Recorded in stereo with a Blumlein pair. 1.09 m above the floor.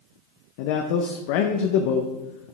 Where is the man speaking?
45° left, 0.6 m.